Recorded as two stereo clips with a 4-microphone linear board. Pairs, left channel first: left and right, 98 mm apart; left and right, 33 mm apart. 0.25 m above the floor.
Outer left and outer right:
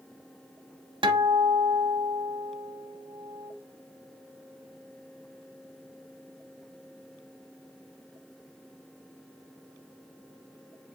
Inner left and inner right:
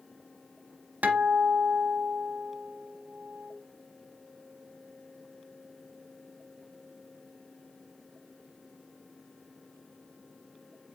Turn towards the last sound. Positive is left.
turn(degrees=-55)  # may be behind; listen again after turning